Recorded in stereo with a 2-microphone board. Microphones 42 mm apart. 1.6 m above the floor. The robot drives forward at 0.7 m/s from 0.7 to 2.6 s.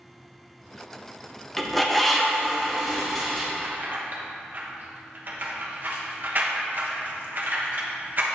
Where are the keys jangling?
50° right (ahead or behind), 1.1 m.